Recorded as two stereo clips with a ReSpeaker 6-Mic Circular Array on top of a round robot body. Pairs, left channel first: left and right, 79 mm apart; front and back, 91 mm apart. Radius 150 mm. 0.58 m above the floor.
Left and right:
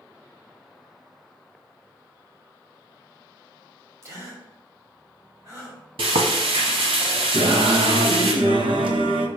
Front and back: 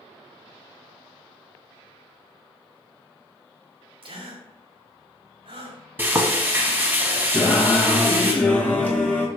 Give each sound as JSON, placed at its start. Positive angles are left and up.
{"t": 4.0, "sound": "a gasp", "azimuth_deg": -150, "distance_m": 2.0}
{"t": 6.0, "sound": "frying", "azimuth_deg": -110, "distance_m": 0.7}
{"t": 7.3, "sound": "singing", "azimuth_deg": -75, "distance_m": 1.1}